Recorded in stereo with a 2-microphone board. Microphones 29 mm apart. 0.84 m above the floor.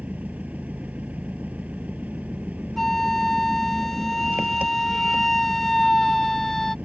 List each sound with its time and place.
0.0 s an engine running: 65° right (ahead or behind)
2.8 s a flute: 10° left (ahead or behind)